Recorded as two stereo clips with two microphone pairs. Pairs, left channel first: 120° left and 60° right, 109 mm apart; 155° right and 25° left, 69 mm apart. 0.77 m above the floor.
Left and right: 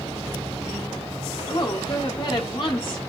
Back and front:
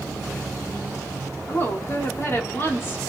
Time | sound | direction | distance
1.5 | a woman speaking | 155° left | 2 m